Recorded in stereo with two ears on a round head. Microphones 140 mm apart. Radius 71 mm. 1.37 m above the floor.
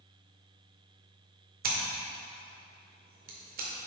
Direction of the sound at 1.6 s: 60° right (ahead or behind).